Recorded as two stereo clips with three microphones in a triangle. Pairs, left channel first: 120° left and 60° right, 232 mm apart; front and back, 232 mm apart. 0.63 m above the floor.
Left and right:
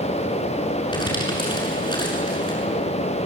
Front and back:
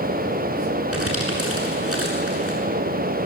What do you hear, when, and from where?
0.9 s crumpling: 170° right, 7.5 m